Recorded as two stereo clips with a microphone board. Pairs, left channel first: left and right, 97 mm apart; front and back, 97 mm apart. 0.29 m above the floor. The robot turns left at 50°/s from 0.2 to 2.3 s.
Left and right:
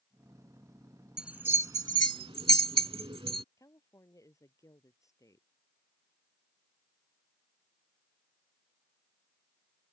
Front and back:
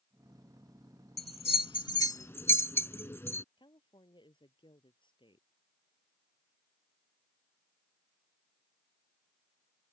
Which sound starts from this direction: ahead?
A bell, at 1.2 s.